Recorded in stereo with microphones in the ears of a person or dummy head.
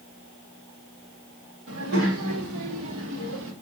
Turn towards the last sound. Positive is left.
turn(degrees=-70)  # may be behind; listen again after turning